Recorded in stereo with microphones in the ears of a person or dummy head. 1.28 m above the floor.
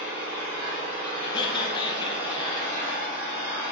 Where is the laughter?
25° left (ahead or behind), 0.8 m.